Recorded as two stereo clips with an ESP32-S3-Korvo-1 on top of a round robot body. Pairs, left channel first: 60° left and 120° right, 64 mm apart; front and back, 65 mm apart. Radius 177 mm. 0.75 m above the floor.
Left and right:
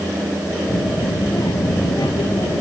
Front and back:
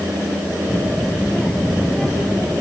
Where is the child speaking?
85° left; by 2.6 s 75° left.